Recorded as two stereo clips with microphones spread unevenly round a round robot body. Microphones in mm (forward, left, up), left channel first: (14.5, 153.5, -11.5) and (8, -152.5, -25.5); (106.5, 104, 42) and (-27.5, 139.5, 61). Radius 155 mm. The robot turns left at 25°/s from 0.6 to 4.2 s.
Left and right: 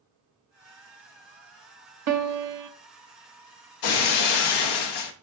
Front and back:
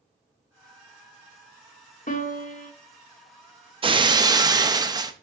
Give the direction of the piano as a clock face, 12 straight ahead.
2 o'clock.